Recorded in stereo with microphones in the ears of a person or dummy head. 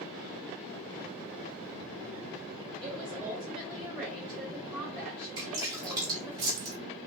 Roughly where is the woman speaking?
Centre.